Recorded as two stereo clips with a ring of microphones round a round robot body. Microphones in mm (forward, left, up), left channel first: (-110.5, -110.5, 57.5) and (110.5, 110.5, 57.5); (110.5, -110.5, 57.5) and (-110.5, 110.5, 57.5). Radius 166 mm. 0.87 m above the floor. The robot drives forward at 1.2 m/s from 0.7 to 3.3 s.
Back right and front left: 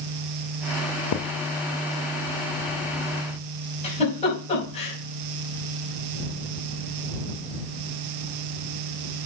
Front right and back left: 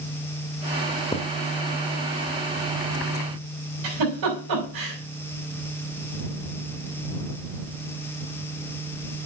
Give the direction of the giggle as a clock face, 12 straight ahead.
7 o'clock.